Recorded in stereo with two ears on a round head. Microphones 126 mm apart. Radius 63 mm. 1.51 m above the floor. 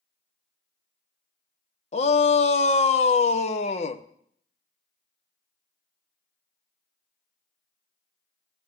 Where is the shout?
45° left (ahead or behind), 0.9 m.